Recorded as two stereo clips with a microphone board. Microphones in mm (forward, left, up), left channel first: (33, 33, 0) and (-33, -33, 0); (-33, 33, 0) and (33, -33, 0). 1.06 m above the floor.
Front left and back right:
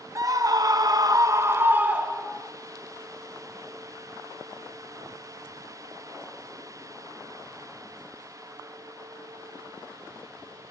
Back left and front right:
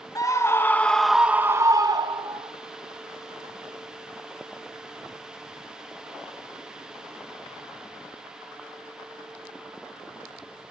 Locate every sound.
0.1 s a scream: straight behind, 1.2 m; by 2.5 s 50° right, 1.3 m